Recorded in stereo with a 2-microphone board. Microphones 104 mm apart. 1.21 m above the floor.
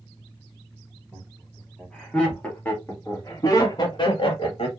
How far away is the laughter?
About 2.5 m.